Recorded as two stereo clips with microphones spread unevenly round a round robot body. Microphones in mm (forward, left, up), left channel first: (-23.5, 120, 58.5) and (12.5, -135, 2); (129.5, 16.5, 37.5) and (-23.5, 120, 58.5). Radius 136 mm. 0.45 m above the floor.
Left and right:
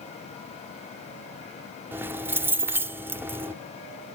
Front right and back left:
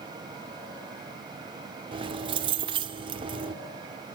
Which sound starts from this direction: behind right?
Keys jangling, at 1.9 s.